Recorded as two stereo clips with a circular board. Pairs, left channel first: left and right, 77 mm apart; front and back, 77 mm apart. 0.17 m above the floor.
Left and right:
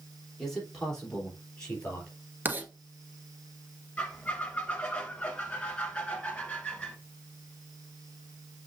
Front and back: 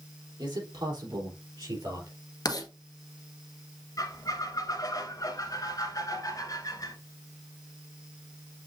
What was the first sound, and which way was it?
A man speaking, 175° left.